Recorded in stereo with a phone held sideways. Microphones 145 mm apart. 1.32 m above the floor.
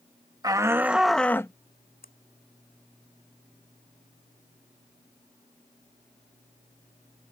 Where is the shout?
25° right (ahead or behind); by 1.5 s 20° left (ahead or behind).